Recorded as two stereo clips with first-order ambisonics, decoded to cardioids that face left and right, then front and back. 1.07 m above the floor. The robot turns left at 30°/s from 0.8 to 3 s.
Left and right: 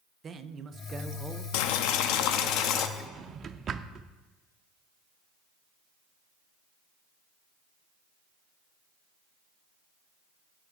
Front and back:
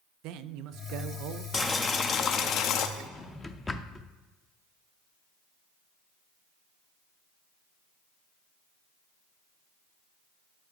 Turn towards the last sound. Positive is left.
turn(degrees=-65)